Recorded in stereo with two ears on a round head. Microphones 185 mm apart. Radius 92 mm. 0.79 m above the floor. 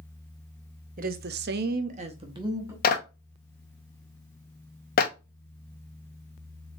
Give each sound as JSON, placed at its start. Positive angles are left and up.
{"t": 1.0, "sound": "a woman speaking", "side_deg": -40, "distance_m": 0.9}
{"t": 2.8, "sound": "a clap", "side_deg": 45, "distance_m": 1.0}